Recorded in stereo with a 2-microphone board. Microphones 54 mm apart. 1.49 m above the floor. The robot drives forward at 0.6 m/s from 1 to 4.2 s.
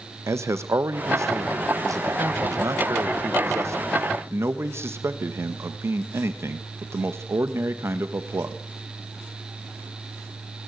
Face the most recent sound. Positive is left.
turn(degrees=-50)  # may be behind; listen again after turning